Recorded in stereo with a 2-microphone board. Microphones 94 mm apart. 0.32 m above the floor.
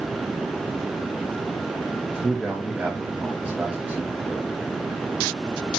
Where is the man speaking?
15° right (ahead or behind), 1.9 m.